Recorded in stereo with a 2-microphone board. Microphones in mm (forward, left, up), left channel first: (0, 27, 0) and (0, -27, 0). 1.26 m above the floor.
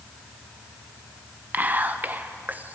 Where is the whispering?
30° right (ahead or behind), 0.7 m.